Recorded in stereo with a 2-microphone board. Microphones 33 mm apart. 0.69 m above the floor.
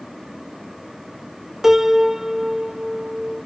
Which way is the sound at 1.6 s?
15° right (ahead or behind).